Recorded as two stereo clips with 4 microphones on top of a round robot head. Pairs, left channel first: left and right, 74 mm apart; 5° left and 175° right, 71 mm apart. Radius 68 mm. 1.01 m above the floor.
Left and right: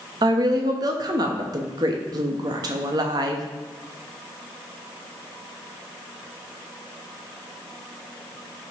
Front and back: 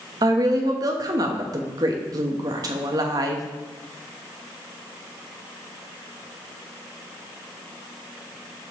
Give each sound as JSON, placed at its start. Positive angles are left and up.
{"t": 0.2, "sound": "a woman speaking", "azimuth_deg": -135, "distance_m": 1.1}